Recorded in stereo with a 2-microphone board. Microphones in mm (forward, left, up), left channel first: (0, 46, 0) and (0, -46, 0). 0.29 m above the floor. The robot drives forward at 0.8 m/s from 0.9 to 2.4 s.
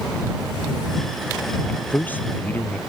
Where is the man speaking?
20° left (ahead or behind).